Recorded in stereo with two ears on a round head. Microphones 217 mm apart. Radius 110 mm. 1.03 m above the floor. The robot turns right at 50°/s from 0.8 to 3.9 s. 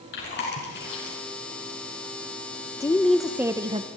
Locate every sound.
0.1 s chewing: 45° left (ahead or behind), 6 m; by 1.2 s 60° left (ahead or behind), 6 m
2.8 s a woman speaking: 160° left, 0.8 m; by 3.9 s 145° right, 0.8 m